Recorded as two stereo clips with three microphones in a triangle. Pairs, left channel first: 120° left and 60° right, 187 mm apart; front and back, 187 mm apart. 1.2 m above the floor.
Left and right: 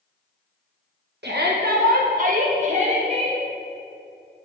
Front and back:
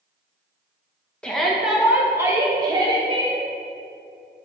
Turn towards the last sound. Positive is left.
turn(degrees=-120)